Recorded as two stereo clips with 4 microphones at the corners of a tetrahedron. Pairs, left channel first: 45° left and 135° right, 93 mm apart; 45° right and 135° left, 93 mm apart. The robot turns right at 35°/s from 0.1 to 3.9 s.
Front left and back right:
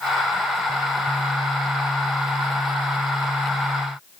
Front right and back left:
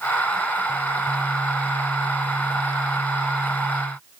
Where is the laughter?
No laughter in this recording.